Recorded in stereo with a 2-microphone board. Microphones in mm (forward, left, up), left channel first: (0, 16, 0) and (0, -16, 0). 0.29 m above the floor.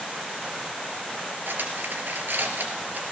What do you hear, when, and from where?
1.5 s cutlery clinking: 75° right (ahead or behind), 3 m